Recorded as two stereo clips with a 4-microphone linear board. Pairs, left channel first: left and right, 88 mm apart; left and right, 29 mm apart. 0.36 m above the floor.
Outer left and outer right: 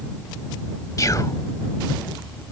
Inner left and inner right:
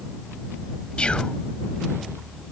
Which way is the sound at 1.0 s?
45° left (ahead or behind).